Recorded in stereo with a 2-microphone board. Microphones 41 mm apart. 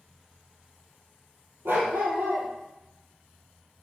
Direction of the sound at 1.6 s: 80° right.